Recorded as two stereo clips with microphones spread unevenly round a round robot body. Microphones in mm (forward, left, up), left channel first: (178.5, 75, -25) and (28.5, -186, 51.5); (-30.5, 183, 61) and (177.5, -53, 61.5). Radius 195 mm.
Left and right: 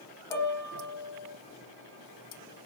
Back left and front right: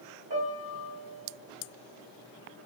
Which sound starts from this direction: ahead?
A piano, at 0.3 s.